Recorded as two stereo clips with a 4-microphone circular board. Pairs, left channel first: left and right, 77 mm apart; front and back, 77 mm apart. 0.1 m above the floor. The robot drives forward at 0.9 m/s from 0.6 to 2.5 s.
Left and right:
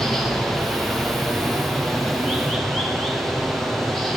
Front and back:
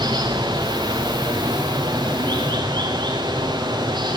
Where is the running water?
175° left, 6.5 m.